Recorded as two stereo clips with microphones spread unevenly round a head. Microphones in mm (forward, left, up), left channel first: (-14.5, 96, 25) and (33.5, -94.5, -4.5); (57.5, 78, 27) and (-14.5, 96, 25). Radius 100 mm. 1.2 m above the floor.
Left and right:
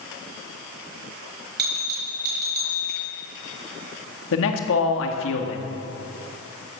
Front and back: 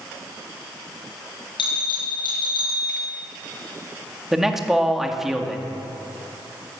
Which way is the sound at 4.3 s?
80° left.